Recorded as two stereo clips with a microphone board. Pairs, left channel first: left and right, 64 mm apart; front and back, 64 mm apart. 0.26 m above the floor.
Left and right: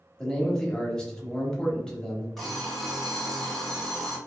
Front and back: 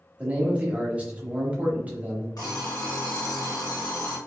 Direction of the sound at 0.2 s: 150° left.